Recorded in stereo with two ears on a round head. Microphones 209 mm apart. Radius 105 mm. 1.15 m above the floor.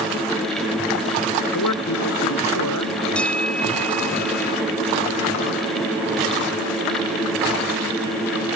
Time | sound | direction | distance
1.5 | a man speaking | 85° left | ?
3.1 | a bell | 5° left (ahead or behind) | ?